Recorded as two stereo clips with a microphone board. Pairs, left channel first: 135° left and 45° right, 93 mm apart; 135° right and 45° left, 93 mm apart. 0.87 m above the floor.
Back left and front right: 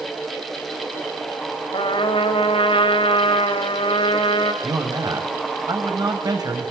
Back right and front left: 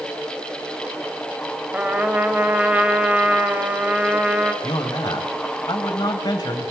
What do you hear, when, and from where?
1.7 s a trumpet: 120° left, 3 m
4.6 s a man speaking: 90° right, 5.5 m